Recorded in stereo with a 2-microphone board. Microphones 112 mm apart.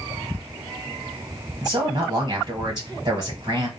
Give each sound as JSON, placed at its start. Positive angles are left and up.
{"t": 1.6, "sound": "a man speaking", "side_deg": -40, "distance_m": 1.2}